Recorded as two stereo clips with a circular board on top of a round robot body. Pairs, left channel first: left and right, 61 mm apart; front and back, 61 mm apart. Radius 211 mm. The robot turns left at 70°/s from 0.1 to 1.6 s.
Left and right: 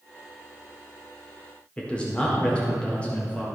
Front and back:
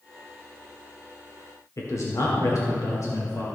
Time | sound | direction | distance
1.8 | a man speaking | 20° left | 2.0 m